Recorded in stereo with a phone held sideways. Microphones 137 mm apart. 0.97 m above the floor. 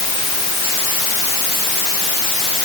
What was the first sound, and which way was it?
Only background noise.